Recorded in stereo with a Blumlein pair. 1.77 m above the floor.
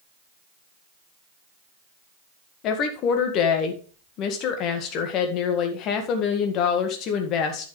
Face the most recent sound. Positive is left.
turn(degrees=35)